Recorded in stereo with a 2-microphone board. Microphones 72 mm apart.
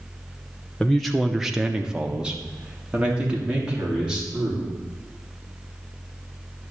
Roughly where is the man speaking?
Centre.